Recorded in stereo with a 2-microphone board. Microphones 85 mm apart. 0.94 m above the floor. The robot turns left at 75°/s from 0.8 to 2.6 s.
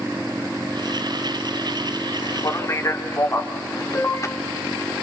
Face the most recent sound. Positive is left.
turn(degrees=35)  # may be behind; listen again after turning